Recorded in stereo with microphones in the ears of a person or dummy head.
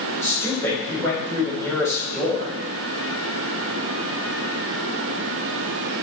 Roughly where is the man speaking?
Centre.